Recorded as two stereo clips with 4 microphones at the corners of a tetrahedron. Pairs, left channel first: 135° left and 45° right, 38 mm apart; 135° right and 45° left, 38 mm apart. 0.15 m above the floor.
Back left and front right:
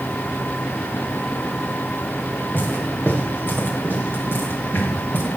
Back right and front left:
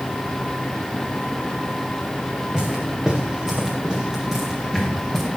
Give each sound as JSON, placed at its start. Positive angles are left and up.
{"t": 2.5, "sound": "footsteps", "azimuth_deg": 115, "distance_m": 6.5}